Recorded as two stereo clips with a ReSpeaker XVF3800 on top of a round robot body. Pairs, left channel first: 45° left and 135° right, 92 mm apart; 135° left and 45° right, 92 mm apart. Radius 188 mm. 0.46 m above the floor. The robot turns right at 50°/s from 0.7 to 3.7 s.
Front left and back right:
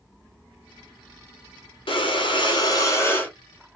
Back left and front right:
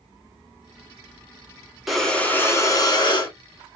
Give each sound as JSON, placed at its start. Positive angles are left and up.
{"t": 1.9, "sound": "breathing", "azimuth_deg": 45, "distance_m": 1.8}